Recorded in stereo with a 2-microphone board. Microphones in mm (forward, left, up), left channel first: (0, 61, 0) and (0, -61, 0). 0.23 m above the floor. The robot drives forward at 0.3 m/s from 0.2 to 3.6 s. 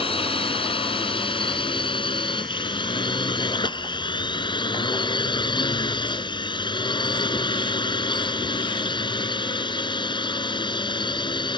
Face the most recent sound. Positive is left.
turn(degrees=40)  # may be behind; listen again after turning